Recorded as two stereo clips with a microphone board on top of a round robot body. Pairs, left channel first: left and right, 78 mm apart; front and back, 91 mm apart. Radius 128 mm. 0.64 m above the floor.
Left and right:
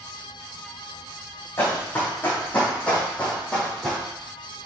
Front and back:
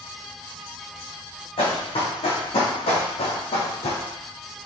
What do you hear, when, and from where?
1.6 s running footsteps: 25° left, 3.5 m; by 4.0 s straight ahead, 2 m